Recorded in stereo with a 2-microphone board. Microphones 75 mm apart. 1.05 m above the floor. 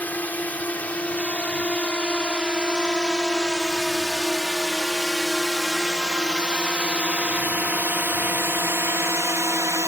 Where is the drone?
20° left (ahead or behind); by 9.9 s 40° right (ahead or behind).